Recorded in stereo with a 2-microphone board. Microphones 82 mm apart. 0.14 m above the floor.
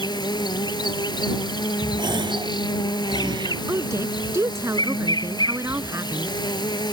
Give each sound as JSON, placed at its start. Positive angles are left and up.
{"t": 0.0, "sound": "an insect", "side_deg": 65}
{"t": 2.0, "sound": "a gasp", "side_deg": -80}
{"t": 3.7, "sound": "a woman speaking", "side_deg": -35}